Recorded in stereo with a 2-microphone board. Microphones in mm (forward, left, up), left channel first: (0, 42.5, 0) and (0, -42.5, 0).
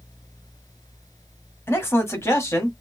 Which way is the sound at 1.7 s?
30° left (ahead or behind).